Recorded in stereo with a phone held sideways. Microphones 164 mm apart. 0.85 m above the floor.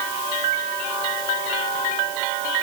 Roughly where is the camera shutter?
No camera shutter in this recording.